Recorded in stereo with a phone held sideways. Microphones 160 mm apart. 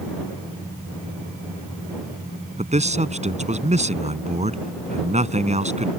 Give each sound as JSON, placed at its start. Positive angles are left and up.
{"t": 2.6, "sound": "a man speaking", "side_deg": -45}